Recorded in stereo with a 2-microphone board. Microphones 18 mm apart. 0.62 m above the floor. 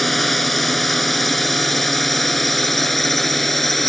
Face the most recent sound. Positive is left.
turn(degrees=10)  # may be behind; listen again after turning